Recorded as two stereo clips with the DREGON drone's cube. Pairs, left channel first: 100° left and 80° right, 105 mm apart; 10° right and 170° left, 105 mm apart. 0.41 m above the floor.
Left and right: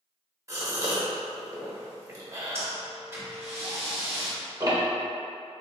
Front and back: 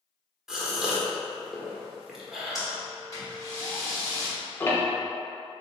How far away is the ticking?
About 0.7 m.